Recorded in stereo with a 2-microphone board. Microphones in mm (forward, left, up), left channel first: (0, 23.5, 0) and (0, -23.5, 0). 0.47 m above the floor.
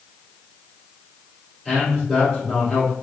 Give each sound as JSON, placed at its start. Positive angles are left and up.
{"t": 1.6, "sound": "a man speaking", "side_deg": 10, "distance_m": 1.7}